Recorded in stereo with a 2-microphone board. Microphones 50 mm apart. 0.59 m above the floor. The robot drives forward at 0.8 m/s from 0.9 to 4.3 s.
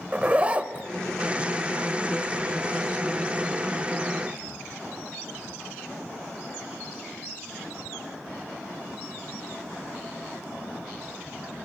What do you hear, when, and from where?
0.1 s a zipper: 25° right (ahead or behind), 0.6 m